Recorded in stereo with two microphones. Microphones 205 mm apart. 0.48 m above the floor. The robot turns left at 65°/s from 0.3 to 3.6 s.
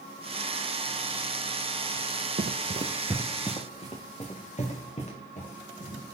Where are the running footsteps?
55° right (ahead or behind), 0.7 m; by 6.0 s 35° left (ahead or behind), 5 m.